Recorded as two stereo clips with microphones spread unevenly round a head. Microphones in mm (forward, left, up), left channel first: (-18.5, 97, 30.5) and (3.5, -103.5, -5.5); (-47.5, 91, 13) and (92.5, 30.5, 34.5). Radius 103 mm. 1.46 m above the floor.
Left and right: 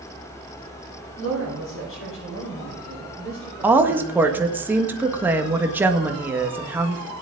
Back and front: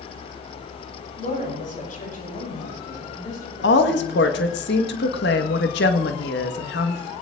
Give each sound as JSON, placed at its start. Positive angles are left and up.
{"t": 1.2, "sound": "a woman speaking", "azimuth_deg": 120, "distance_m": 9.0}
{"t": 3.6, "sound": "a woman speaking", "azimuth_deg": -165, "distance_m": 1.6}